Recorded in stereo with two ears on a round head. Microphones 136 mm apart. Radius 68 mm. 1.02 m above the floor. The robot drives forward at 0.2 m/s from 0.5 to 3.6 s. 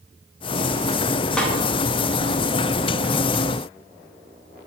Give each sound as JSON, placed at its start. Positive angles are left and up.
{"t": 1.4, "sound": "a snare drum", "side_deg": 5, "distance_m": 0.6}